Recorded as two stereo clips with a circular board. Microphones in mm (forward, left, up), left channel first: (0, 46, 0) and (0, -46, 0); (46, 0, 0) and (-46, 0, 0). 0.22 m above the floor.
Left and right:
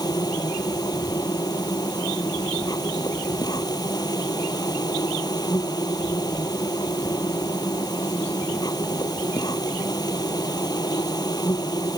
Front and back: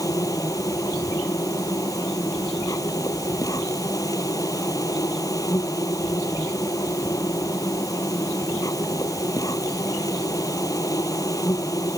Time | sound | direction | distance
0.0 | an insect | 50° left | ?